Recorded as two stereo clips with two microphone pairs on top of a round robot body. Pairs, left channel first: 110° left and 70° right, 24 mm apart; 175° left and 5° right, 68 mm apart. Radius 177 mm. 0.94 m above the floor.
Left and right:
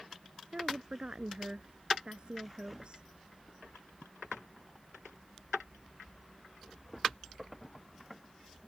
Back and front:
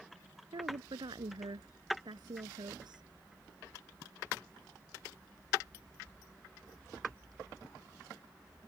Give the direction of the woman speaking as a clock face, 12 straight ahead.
1 o'clock.